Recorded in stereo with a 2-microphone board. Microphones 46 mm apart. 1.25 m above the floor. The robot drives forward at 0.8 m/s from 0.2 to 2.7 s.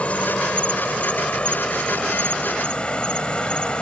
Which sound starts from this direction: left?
An insect, at 0.0 s.